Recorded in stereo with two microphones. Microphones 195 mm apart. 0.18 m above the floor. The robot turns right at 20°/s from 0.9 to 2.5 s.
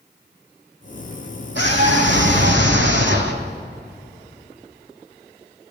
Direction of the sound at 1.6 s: 75° right (ahead or behind).